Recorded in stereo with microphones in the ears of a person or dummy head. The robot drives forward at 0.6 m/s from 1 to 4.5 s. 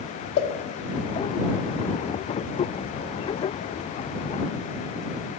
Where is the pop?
60° left (ahead or behind), 1.1 m.